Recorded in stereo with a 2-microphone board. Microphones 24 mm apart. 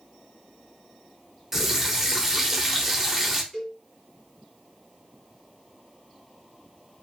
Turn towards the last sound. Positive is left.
turn(degrees=20)  # may be behind; listen again after turning